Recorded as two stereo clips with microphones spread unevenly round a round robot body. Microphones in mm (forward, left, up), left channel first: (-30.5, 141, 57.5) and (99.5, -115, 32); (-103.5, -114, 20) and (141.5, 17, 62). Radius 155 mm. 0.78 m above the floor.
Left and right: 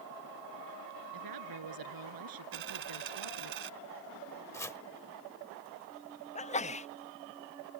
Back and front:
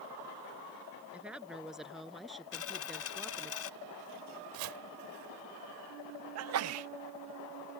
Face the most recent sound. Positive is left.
turn(degrees=50)